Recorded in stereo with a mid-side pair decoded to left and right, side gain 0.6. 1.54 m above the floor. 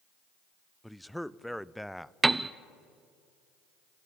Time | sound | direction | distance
0.8 | a man speaking | straight ahead | 0.5 m
2.2 | a piano | 15° right | 0.6 m